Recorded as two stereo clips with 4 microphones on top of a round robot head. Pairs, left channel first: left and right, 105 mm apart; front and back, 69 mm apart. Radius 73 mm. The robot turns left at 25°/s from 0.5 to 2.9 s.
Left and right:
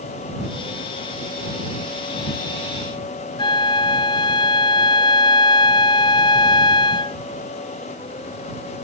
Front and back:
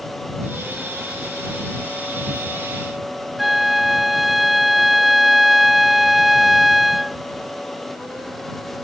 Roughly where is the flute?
Left.